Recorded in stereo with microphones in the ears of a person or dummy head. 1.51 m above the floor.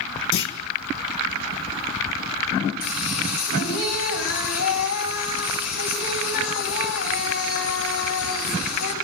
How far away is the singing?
About 9.5 m.